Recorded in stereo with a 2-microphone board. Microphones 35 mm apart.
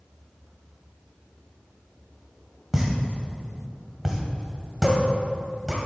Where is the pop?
10° right (ahead or behind), 2 m.